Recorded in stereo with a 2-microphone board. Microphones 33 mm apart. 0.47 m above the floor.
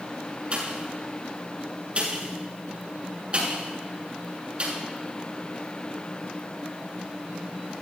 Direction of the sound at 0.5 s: 35° right (ahead or behind).